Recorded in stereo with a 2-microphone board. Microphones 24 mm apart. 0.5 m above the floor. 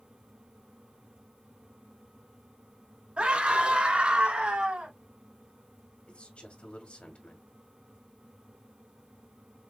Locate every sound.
3.2 s a scream: 60° right (ahead or behind), 3.5 m
6.1 s a man speaking: 60° left (ahead or behind), 2 m